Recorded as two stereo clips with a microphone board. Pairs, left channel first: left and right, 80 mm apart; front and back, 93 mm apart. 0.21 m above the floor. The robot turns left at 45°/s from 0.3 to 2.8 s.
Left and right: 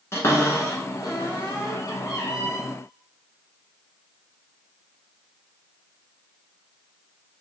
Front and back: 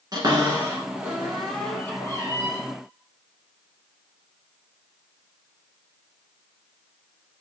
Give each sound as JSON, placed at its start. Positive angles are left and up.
{"t": 0.1, "sound": "a cupboard door", "azimuth_deg": 140, "distance_m": 1.2}